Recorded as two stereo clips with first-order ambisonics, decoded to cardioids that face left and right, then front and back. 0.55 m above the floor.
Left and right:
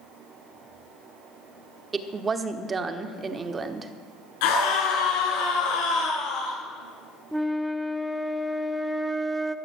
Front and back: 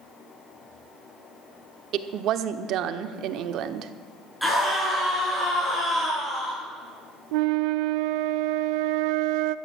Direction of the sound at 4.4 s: 90° left.